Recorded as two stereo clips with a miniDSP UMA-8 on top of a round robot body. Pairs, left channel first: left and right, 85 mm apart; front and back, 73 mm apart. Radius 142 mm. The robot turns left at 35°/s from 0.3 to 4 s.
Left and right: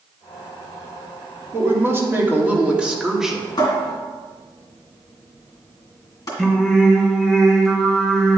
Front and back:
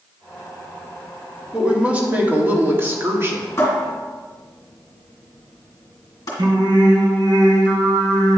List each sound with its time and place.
1.5 s a woman speaking: 110° right, 1.6 m; by 3.5 s straight behind, 1.6 m
3.6 s a cupboard door: 60° left, 2 m; by 6.3 s 45° left, 2 m
6.4 s singing: 170° left, 1.2 m